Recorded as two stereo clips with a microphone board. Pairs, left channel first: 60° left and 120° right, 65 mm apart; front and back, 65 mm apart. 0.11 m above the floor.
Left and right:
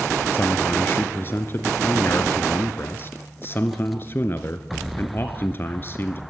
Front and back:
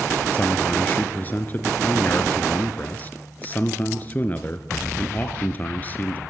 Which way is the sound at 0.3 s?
40° left.